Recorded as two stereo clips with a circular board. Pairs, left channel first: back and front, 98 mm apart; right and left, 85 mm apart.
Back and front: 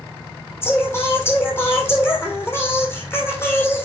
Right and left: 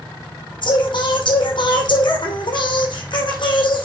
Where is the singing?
115° right, 3 m.